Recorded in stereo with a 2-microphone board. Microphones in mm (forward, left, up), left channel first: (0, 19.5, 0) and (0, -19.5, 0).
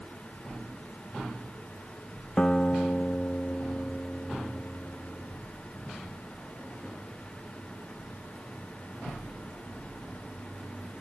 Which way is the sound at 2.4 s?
25° left (ahead or behind).